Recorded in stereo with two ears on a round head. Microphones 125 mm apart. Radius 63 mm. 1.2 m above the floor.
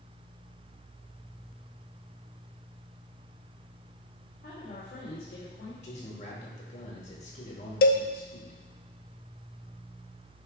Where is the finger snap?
No finger snap in this recording.